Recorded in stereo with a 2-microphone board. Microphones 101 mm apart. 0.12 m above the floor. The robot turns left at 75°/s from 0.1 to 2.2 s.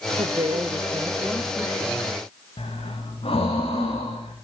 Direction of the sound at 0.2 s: 90° right.